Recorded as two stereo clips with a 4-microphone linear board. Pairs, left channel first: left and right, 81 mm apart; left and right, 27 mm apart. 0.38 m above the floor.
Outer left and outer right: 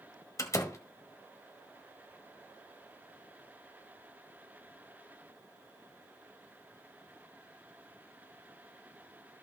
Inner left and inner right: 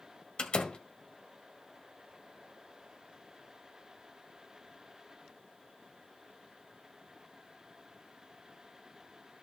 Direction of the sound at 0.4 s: 40° left (ahead or behind).